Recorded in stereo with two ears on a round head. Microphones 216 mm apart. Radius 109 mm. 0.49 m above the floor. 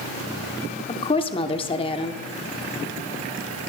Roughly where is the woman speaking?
Left.